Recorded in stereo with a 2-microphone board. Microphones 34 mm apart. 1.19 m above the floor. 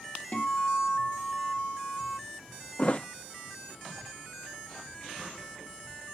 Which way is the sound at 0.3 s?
45° left (ahead or behind).